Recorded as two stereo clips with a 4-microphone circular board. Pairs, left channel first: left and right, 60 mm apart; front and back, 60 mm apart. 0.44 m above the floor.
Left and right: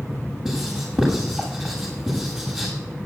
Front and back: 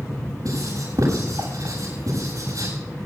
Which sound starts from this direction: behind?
Writing, at 0.5 s.